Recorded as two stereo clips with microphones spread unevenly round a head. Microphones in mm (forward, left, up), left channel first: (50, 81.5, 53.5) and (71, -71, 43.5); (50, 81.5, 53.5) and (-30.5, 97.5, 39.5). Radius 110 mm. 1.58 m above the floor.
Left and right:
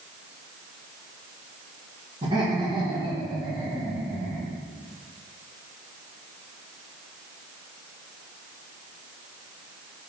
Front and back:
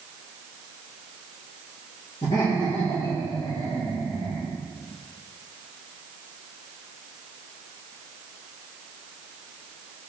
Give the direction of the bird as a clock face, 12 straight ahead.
I don't hear a bird.